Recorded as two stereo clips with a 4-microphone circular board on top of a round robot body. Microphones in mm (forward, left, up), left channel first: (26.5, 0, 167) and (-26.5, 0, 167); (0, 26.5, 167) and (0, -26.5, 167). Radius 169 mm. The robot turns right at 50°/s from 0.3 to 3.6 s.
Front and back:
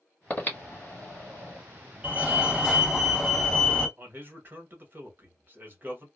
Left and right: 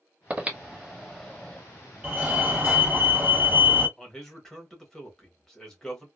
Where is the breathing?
40° right, 1.4 m; by 1.6 s 25° left, 1.4 m.